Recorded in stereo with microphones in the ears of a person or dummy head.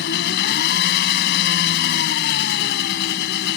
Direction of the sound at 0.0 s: 65° left (ahead or behind).